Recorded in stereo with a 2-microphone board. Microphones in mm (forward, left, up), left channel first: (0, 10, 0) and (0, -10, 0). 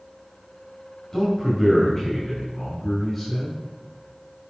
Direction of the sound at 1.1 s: 25° left (ahead or behind).